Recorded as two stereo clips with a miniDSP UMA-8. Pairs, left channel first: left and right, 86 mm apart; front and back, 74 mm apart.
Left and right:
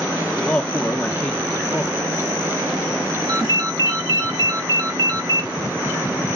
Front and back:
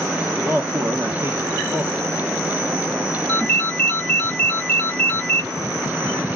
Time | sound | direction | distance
0.4 | a man speaking | 155° left | 0.8 m
3.3 | a ringtone | 75° right | 1.2 m